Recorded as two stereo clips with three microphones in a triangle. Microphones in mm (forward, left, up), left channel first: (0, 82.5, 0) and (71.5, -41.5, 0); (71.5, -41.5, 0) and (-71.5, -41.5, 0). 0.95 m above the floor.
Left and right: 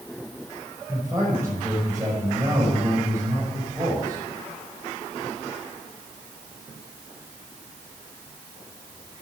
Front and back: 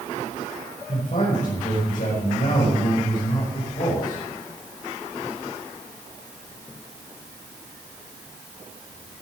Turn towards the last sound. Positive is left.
turn(degrees=10)